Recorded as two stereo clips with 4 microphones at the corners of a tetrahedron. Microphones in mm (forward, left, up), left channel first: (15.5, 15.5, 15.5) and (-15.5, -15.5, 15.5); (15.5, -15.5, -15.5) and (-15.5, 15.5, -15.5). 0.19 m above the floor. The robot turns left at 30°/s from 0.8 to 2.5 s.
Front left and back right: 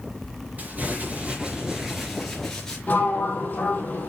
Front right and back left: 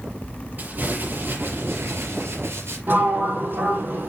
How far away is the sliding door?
About 2.5 m.